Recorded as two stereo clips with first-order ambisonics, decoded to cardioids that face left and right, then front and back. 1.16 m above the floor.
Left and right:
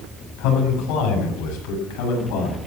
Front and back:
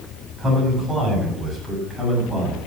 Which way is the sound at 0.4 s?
105° left.